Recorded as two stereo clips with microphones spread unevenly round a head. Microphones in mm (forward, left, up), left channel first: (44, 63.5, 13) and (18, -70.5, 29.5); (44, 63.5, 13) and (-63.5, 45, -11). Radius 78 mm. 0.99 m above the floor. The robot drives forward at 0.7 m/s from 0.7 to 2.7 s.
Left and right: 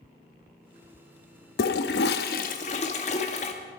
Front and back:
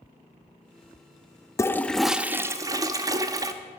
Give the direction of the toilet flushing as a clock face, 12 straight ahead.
10 o'clock.